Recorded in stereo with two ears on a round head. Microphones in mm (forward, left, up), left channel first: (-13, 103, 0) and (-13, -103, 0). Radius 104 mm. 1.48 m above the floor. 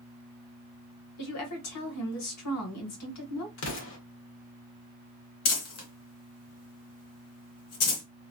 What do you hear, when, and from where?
1.2 s a woman speaking: 80° left, 1.5 m
3.6 s an explosion: 60° left (ahead or behind), 1.2 m
5.5 s crumpling: 75° left (ahead or behind), 1.3 m